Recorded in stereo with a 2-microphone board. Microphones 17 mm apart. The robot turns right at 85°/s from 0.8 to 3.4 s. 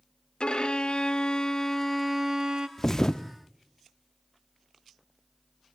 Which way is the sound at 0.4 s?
75° left.